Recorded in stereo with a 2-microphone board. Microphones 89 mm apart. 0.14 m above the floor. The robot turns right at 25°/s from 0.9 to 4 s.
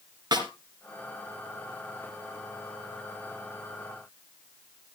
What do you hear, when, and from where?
0.3 s a snare drum: 50° right (ahead or behind), 2.5 m